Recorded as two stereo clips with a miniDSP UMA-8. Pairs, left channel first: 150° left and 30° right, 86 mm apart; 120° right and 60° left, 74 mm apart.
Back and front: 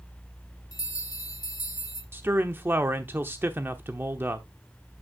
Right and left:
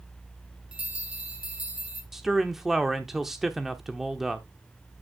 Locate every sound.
0.7 s a bell: 130° left, 1.3 m
2.1 s a man speaking: 20° right, 0.9 m